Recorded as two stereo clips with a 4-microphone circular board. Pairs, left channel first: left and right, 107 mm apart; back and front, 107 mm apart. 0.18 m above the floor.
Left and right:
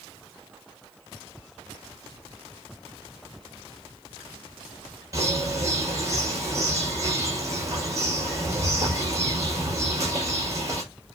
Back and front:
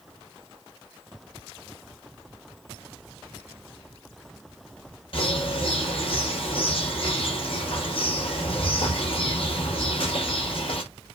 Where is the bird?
150° right, 5 m.